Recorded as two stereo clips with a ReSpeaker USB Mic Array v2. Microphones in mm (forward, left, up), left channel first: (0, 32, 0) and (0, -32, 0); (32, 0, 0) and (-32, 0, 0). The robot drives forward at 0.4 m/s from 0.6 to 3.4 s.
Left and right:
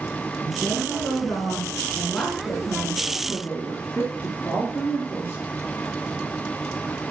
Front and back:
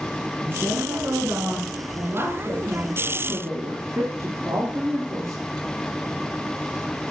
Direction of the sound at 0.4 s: 135° left.